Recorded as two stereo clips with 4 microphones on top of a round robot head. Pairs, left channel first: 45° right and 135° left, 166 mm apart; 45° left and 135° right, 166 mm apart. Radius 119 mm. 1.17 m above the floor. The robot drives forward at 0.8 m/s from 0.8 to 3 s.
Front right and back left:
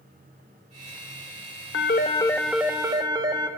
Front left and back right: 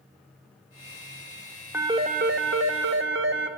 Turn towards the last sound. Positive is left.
turn(degrees=-155)